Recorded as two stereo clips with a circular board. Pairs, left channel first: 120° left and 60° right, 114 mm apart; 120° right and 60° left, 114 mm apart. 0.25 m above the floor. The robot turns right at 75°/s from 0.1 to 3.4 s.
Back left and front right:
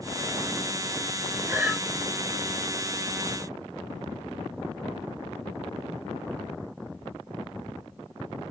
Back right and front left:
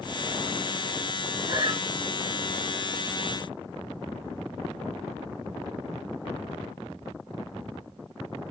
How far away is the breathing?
About 1.7 m.